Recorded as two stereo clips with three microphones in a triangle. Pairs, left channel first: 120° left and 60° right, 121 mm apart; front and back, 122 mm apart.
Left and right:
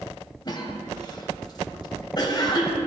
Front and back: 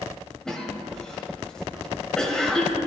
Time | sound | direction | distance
0.5 | a cough | 85° left | 1.2 m